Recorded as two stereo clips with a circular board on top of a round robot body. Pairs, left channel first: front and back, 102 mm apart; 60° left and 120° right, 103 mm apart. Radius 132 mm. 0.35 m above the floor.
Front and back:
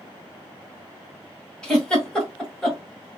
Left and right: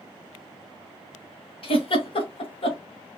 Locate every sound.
1.6 s a giggle: 85° left, 1.8 m